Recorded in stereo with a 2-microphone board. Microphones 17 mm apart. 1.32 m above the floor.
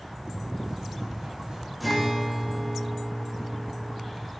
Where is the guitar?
5° right (ahead or behind), 3.5 m.